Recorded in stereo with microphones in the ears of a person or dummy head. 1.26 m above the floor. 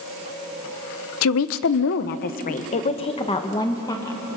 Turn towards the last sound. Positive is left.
turn(degrees=15)  # may be behind; listen again after turning